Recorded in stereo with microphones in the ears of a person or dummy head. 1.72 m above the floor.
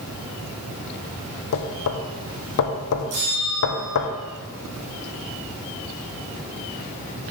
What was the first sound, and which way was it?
Knocking, 70° left (ahead or behind).